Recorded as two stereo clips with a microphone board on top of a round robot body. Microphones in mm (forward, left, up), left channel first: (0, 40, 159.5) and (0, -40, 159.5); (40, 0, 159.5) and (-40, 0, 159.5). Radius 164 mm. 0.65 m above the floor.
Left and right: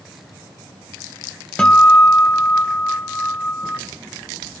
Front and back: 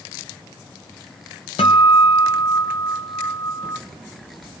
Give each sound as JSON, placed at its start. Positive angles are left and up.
{"t": 1.6, "sound": "a guitar", "azimuth_deg": 15, "distance_m": 0.6}